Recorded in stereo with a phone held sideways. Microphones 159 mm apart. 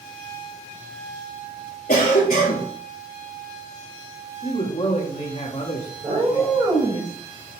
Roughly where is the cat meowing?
Right.